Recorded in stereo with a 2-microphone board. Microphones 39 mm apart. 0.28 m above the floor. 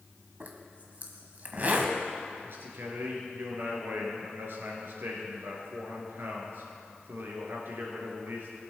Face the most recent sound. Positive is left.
turn(degrees=-75)  # may be behind; listen again after turning